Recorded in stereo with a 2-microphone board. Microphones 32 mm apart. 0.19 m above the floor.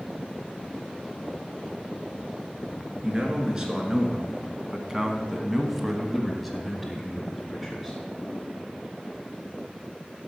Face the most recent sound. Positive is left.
turn(degrees=15)  # may be behind; listen again after turning